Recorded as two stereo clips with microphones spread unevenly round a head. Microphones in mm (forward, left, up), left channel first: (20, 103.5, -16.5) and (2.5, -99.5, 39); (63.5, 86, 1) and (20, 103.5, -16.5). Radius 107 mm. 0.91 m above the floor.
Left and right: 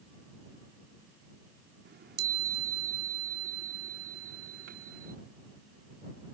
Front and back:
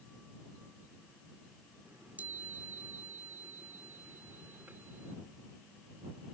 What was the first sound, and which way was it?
A chime, 125° right.